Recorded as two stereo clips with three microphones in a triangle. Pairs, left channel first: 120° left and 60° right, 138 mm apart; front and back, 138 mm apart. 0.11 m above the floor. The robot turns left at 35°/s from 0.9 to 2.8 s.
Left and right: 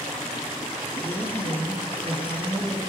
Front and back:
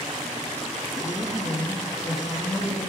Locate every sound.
1.0 s a woman speaking: 85° left, 1.5 m; by 2.9 s 25° left, 1.5 m